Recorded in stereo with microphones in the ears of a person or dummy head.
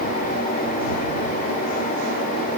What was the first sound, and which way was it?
Only background noise.